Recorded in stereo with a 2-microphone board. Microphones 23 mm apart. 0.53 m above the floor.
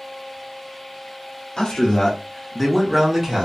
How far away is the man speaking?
About 0.8 m.